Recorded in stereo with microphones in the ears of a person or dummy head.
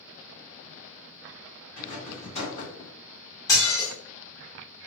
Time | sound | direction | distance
1.8 | a rattle | 30° left (ahead or behind) | 1.4 m
3.5 | dishes clattering | 15° left (ahead or behind) | 1.2 m